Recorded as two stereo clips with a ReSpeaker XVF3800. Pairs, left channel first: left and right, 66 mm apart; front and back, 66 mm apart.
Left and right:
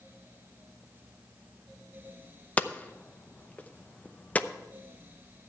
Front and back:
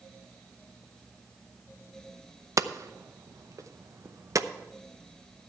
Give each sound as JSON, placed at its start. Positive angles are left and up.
{"t": 2.6, "sound": "hammering", "azimuth_deg": 155, "distance_m": 0.6}